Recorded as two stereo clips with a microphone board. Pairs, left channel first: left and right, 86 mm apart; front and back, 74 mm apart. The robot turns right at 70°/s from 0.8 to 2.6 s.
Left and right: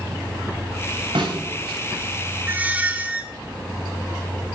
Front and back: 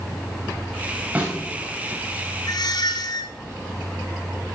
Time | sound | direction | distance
1.1 | a snare drum | 115° right | 5 m
2.5 | a squeak | 30° right | 1.1 m